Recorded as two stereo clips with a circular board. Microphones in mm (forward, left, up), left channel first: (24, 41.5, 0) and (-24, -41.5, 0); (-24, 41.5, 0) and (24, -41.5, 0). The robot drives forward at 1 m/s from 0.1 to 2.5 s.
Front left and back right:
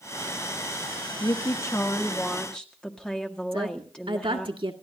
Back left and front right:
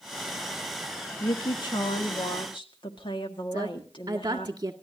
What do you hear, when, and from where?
1.2 s a woman speaking: 85° left, 1.3 m; by 4.5 s 140° left, 1.8 m
3.5 s a woman speaking: 105° right, 1.8 m